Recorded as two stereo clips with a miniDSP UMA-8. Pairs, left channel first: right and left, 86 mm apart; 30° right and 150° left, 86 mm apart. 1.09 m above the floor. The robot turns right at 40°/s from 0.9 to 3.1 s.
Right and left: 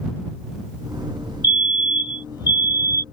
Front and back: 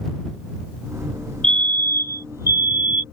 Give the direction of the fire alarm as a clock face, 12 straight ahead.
4 o'clock.